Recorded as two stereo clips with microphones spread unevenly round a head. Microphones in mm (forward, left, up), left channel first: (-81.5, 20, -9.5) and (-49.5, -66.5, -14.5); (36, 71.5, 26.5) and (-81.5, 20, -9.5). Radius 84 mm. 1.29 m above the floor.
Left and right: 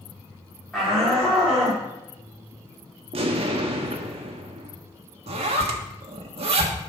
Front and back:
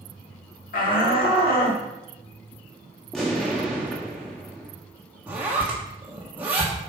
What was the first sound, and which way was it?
A shout, 20° left.